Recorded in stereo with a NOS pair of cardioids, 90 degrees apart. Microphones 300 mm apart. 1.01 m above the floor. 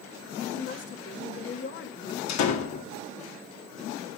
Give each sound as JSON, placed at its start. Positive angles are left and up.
{"t": 0.5, "sound": "a woman speaking", "azimuth_deg": 40, "distance_m": 1.4}
{"t": 2.3, "sound": "a door slam", "azimuth_deg": 65, "distance_m": 1.9}